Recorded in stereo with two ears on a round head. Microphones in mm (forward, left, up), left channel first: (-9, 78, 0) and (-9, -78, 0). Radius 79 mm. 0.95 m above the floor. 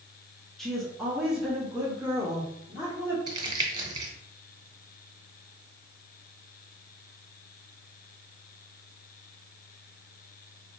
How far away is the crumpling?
About 0.8 m.